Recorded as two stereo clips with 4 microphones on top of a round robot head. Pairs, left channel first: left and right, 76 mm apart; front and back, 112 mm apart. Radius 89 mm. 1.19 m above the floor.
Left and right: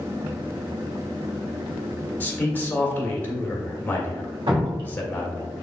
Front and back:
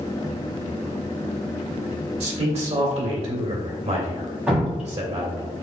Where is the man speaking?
155° left, 2 m.